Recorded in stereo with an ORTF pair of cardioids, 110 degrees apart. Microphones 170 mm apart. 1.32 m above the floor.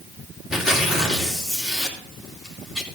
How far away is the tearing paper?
About 3 m.